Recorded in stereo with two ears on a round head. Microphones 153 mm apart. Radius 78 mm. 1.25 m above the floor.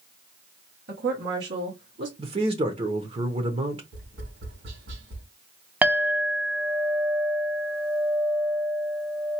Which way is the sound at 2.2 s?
35° right (ahead or behind).